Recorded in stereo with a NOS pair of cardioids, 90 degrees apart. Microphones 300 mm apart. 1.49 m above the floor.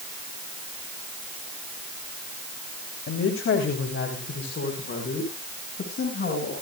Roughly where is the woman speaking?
Ahead left.